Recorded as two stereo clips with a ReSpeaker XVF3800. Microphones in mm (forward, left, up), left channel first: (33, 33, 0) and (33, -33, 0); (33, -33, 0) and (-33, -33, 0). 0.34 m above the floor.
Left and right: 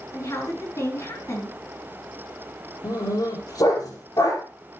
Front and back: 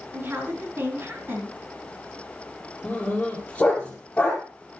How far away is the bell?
No bell in this recording.